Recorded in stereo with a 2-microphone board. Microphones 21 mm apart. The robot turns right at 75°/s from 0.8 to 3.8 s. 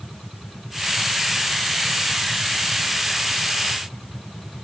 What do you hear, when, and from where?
Only background noise.